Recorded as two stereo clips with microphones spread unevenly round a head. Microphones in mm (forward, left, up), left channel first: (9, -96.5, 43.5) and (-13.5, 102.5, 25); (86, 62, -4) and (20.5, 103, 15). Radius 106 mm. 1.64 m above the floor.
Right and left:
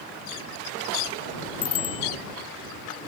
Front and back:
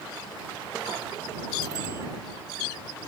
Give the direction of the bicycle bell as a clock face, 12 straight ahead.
5 o'clock.